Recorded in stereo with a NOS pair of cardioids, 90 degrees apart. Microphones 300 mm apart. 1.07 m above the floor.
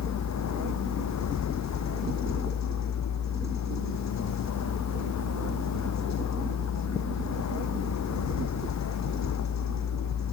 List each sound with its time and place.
0.0 s a vehicle: 65° left